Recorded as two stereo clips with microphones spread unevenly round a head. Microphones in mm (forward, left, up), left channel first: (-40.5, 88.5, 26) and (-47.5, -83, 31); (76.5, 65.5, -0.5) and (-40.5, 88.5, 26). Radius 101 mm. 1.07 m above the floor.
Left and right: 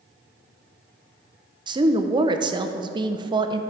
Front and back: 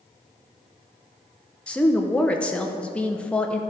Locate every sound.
1.7 s a woman speaking: 55° right, 0.7 m